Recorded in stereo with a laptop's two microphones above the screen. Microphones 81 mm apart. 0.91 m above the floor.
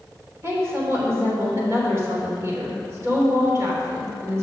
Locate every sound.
0.4 s a woman speaking: 35° right (ahead or behind), 3 m